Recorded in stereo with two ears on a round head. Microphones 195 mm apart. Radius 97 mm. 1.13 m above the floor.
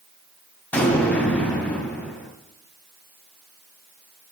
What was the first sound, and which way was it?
An explosion, 5° left (ahead or behind).